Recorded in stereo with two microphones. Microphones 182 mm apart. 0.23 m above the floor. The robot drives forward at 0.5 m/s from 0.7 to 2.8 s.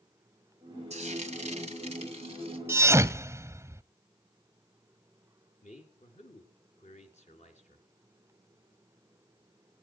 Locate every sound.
0.9 s frying: 40° right (ahead or behind), 2 m; by 2.6 s 35° right (ahead or behind), 2.5 m
2.7 s a thud: 15° right (ahead or behind), 0.6 m
5.6 s a man speaking: 45° left (ahead or behind), 3.5 m